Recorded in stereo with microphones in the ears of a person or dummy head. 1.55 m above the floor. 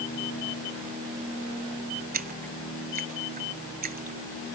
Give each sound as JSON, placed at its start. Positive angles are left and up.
{"t": 2.1, "sound": "a splash", "side_deg": -40}